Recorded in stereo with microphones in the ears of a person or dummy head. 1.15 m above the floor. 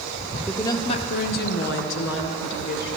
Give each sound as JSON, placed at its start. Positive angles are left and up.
{"t": 0.5, "sound": "a woman speaking", "side_deg": 5, "distance_m": 0.6}